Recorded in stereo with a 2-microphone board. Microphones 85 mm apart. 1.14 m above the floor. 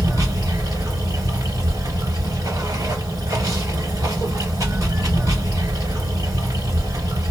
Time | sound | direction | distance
0.0 | running water | 45° right (ahead or behind) | 1.6 m